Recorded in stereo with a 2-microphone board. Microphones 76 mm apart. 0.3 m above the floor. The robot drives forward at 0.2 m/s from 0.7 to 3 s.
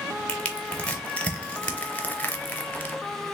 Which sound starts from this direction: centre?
Crushing, at 0.3 s.